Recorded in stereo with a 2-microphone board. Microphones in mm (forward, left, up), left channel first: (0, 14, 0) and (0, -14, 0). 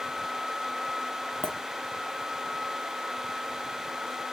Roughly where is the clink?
Left.